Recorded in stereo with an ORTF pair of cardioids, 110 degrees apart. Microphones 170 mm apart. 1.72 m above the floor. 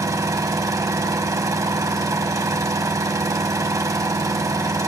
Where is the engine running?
20° right, 1.4 m.